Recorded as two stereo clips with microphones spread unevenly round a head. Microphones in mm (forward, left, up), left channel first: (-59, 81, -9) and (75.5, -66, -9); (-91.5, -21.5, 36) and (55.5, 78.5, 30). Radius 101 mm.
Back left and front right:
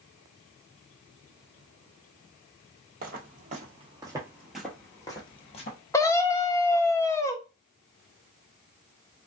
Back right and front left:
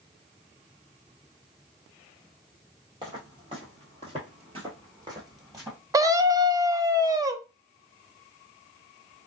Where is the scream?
70° left, 0.5 m.